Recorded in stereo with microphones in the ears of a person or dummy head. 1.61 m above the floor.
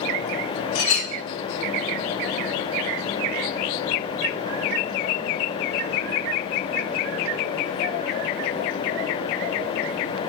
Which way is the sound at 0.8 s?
25° left (ahead or behind).